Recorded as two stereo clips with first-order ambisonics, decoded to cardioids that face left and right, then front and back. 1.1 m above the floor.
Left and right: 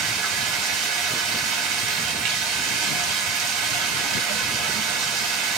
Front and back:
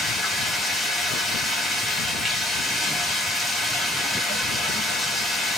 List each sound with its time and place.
0.0 s running water: 90° right, 0.9 m